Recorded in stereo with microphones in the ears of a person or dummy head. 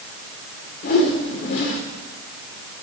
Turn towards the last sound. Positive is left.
turn(degrees=50)  # may be behind; listen again after turning